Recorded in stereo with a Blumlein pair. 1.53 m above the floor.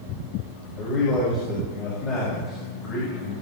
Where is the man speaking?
30° left, 5.5 m.